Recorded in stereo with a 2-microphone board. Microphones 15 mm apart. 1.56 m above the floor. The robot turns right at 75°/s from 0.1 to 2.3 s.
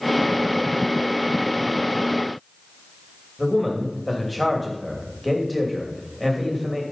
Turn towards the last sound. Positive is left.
turn(degrees=5)  # may be behind; listen again after turning